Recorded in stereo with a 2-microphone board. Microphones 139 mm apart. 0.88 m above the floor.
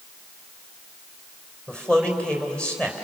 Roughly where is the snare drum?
I don't hear a snare drum.